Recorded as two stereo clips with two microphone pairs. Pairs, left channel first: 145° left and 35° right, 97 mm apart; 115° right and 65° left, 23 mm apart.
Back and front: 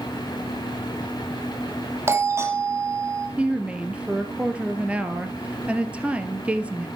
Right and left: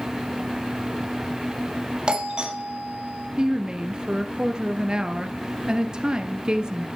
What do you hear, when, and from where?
2.1 s a doorbell: 25° left, 3 m
3.4 s a woman speaking: 35° left, 1.7 m